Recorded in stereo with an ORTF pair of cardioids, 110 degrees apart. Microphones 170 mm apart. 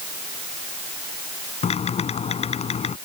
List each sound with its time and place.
1.6 s typing on a keyboard: 40° left